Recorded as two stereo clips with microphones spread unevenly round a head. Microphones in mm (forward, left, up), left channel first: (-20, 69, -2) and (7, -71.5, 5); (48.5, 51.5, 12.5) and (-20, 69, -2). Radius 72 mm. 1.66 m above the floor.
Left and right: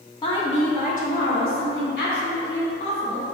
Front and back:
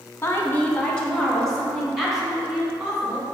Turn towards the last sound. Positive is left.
turn(degrees=85)